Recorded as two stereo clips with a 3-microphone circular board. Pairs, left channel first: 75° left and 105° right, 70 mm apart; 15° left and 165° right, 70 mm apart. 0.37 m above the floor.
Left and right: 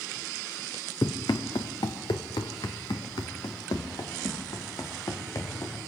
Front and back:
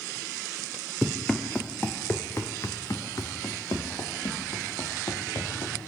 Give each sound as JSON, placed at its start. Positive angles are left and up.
{"t": 1.0, "sound": "running footsteps", "azimuth_deg": 105, "distance_m": 2.0}